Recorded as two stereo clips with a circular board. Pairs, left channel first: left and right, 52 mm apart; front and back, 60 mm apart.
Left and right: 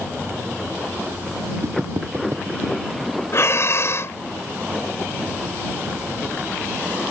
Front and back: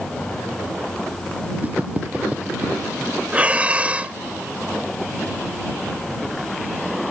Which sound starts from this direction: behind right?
Footsteps, at 1.6 s.